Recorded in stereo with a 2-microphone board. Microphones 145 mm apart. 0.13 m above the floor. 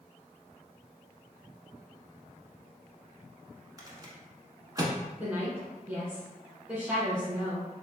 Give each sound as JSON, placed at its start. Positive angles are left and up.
{"t": 3.8, "sound": "a rattle", "side_deg": -25, "distance_m": 0.7}
{"t": 5.2, "sound": "a woman speaking", "side_deg": -10, "distance_m": 1.2}